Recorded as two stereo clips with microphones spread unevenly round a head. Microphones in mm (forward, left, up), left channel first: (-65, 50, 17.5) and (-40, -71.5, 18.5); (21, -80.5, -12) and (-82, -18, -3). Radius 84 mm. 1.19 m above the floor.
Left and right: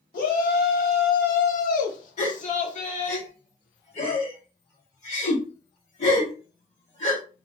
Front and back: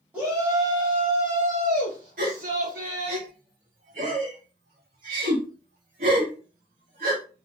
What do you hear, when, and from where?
0.1 s a shout: 70° left, 1.3 m; by 3.2 s 125° left, 1.9 m
2.2 s a gasp: 125° left, 2 m